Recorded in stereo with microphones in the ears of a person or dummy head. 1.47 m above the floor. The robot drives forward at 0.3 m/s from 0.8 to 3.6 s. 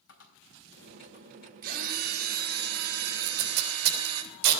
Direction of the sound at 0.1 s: 70° left (ahead or behind).